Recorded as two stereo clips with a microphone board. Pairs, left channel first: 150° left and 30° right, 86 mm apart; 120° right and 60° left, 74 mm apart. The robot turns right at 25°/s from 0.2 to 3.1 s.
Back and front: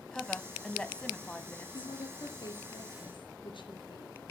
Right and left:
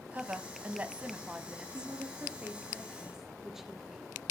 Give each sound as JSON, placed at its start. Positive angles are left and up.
{"t": 0.1, "sound": "a woman speaking", "azimuth_deg": 80, "distance_m": 1.2}
{"t": 1.7, "sound": "a woman speaking", "azimuth_deg": 110, "distance_m": 3.0}